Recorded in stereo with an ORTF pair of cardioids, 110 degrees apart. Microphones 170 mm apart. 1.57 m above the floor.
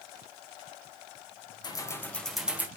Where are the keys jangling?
25° left, 1.3 m; by 2.7 s 10° right, 1.4 m.